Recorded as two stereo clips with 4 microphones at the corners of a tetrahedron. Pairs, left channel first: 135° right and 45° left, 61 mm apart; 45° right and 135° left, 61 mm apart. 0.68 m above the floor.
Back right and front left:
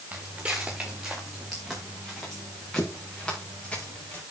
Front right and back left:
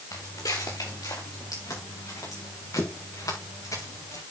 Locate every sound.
0.1 s footsteps: 25° right, 4 m; by 4.2 s 65° right, 7.5 m